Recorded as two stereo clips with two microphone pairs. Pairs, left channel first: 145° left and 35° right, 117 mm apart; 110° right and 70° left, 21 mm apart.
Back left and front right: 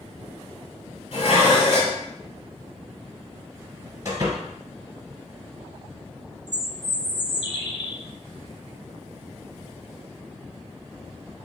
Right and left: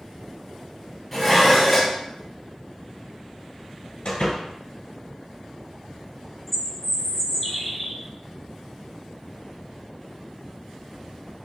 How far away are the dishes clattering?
About 1.9 m.